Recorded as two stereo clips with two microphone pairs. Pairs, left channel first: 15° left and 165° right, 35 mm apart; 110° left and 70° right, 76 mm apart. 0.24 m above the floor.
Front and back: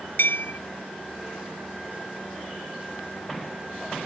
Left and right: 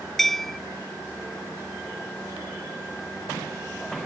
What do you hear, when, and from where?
0.2 s a bell: 25° left